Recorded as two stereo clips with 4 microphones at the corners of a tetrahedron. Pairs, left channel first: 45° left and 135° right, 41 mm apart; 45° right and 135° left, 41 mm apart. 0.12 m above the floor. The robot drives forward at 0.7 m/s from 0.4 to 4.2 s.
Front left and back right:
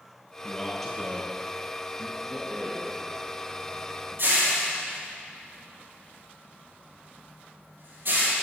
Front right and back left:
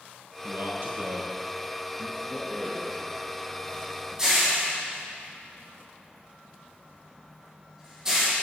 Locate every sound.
0.4 s a man speaking: 125° left, 2.5 m; by 2.2 s 145° left, 3.5 m
2.3 s a rattle: 140° right, 3 m; by 8.3 s 150° right, 4 m